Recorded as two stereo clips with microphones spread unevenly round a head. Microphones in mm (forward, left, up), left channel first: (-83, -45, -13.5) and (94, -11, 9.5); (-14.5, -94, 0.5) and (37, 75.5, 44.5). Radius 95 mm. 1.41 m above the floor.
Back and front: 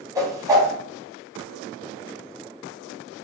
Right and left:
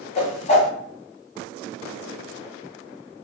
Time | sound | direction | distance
0.1 | a whoosh | 45° right | 1.8 m